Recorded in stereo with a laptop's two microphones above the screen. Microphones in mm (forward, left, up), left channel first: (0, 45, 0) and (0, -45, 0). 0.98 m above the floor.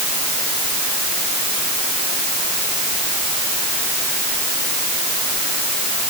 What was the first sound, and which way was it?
Only background noise.